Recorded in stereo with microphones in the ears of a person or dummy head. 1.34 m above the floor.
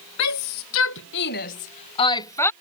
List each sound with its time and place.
0.2 s a shout: 85° left; by 2.5 s 10° left (ahead or behind)